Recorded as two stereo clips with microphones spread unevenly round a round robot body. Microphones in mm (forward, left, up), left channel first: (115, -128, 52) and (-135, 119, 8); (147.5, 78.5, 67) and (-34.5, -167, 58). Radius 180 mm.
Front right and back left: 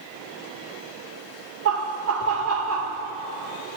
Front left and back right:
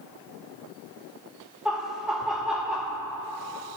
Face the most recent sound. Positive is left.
turn(degrees=145)